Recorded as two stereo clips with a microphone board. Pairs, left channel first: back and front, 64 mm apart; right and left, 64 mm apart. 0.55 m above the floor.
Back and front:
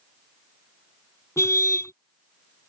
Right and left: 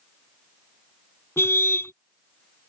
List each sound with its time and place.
1.4 s a car horn: 140° right